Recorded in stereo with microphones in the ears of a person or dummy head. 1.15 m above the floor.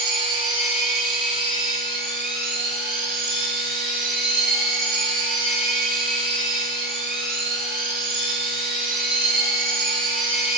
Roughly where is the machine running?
Centre.